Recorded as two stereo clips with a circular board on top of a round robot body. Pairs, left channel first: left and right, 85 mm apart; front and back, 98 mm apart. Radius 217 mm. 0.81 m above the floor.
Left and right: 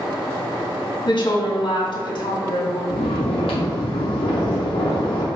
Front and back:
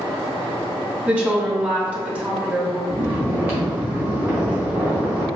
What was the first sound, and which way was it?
A woman speaking, 105° left.